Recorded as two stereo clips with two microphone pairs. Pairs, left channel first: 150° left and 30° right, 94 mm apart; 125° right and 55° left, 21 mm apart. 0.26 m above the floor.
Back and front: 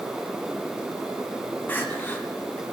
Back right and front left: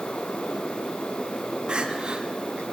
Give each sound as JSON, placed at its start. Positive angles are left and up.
{"t": 1.7, "sound": "crying", "azimuth_deg": 80, "distance_m": 2.0}